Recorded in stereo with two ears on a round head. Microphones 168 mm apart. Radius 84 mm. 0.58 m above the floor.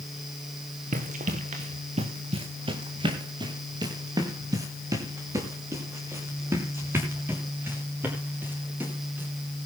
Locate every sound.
0.9 s running footsteps: 45° right (ahead or behind), 2.5 m; by 9.3 s 10° right (ahead or behind), 9 m